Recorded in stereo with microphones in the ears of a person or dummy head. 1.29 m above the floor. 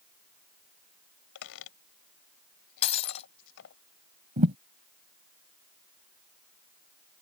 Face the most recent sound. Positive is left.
turn(degrees=-35)  # may be behind; listen again after turning